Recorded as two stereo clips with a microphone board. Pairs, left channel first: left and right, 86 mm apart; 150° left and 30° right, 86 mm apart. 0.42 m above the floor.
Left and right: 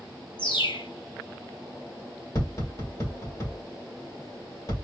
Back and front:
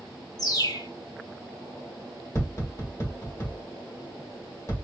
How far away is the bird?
About 0.9 m.